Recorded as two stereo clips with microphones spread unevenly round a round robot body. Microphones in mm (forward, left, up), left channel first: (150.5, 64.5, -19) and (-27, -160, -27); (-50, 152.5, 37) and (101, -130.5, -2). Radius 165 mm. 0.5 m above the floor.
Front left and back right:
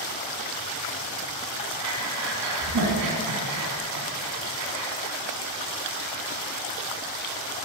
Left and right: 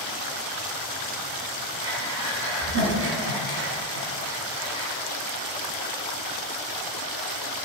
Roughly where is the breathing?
Behind right.